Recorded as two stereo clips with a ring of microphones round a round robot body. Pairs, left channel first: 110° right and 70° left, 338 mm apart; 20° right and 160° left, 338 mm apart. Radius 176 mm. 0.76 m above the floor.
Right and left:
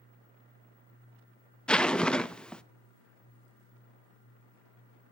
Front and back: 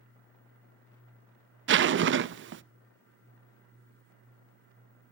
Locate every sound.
1.7 s a zipper: 160° left, 0.6 m